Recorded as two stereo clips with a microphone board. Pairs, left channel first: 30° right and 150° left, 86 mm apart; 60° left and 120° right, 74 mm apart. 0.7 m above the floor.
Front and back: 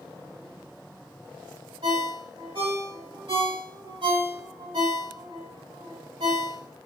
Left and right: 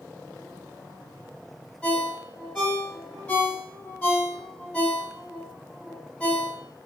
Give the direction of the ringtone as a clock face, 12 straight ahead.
7 o'clock.